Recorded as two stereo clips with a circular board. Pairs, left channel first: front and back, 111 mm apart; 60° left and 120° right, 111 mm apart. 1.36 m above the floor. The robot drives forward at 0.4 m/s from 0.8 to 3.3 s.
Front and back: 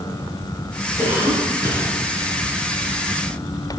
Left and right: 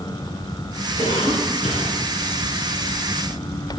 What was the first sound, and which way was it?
A cough, 55° left.